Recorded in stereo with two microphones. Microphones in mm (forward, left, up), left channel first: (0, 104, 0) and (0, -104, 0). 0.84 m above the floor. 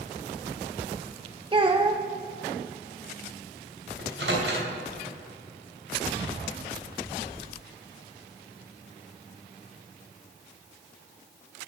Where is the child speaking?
25° right (ahead or behind), 0.5 m.